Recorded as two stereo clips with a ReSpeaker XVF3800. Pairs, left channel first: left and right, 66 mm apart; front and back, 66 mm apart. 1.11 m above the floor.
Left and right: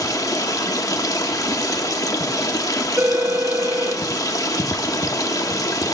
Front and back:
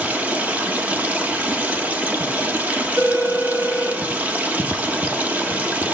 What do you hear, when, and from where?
0.0 s running water: 115° left, 0.9 m
3.0 s a phone ringing: 150° right, 1.2 m